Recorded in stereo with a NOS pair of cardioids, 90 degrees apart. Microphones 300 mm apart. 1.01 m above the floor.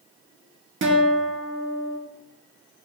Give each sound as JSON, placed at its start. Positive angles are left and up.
{"t": 0.8, "sound": "a guitar", "azimuth_deg": -40, "distance_m": 1.3}